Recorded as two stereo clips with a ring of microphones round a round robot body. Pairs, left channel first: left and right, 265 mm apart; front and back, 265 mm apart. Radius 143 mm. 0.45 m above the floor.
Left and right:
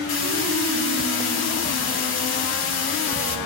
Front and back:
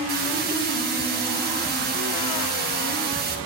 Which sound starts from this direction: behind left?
A hiss, at 0.1 s.